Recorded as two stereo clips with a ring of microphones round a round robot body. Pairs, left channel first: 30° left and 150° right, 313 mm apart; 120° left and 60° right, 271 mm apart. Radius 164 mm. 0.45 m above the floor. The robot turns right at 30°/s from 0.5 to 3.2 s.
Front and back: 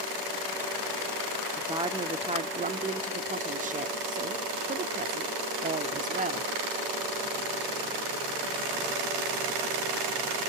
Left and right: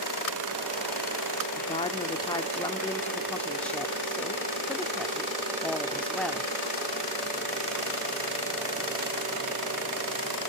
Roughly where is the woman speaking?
Behind left.